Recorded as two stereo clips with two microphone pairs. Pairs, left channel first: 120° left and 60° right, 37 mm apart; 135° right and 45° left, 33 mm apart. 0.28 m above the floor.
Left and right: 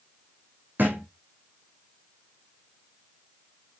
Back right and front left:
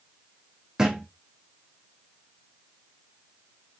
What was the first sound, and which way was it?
A thud, 25° right.